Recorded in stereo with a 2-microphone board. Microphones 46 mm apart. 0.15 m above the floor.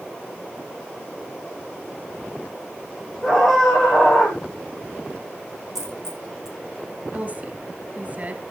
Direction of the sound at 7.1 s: 35° right (ahead or behind).